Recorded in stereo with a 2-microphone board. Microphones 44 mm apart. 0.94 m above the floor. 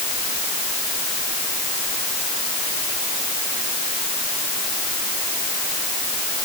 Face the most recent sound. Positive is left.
No sound to turn to.